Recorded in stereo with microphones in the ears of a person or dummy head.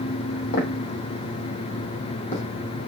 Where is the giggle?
I don't hear a giggle.